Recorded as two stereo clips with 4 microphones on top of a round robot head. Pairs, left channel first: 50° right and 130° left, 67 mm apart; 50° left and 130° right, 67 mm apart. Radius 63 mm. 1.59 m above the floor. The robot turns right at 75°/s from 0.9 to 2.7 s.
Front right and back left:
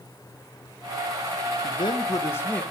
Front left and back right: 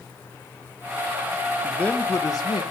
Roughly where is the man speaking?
Ahead right.